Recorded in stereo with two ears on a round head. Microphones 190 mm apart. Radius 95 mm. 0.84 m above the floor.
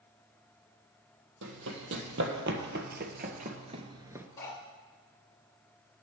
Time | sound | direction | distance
1.4 | running footsteps | 65° right (ahead or behind) | 2 m
4.4 | cutlery clinking | 15° left (ahead or behind) | 2.0 m